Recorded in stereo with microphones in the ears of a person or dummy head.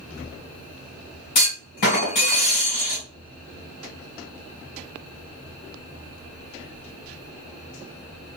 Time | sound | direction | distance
1.4 | a clunk | 35° left (ahead or behind) | 1.7 m